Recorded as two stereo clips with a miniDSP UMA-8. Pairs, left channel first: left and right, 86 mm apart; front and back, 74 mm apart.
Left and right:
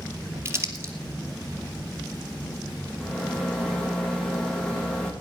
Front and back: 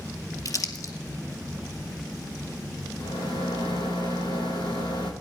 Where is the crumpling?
35° right, 2 m.